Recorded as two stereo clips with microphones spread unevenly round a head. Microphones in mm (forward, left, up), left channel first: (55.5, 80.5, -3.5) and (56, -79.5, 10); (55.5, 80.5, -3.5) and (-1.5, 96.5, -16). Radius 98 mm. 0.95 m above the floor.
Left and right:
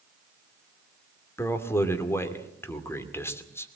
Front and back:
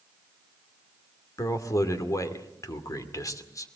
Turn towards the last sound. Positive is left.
turn(degrees=15)